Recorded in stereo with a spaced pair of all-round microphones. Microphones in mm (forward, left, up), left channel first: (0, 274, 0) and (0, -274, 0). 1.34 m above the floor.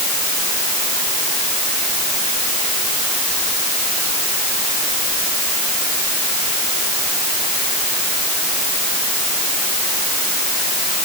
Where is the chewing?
No chewing in this recording.